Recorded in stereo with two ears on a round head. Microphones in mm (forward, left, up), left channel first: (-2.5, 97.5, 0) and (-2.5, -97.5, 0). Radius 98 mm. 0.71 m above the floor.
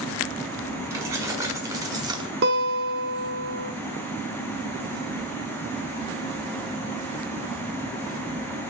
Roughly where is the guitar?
Right.